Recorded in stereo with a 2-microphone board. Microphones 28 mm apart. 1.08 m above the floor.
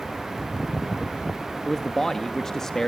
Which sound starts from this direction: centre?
A man speaking, at 1.6 s.